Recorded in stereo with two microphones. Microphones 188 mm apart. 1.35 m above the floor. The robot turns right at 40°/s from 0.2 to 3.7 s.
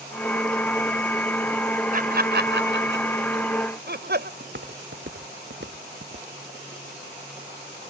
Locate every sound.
1.9 s laughter: 45° right (ahead or behind); by 4.3 s 60° right (ahead or behind)
4.4 s footsteps: 70° right (ahead or behind); by 6.3 s 65° right (ahead or behind)